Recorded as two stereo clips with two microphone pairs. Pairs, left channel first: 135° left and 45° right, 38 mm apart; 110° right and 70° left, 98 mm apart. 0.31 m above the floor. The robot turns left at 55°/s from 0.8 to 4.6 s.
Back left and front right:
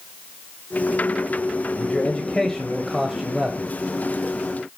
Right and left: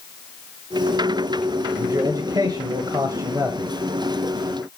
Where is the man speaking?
115° left, 1.4 m; by 3.7 s 5° left, 1.4 m.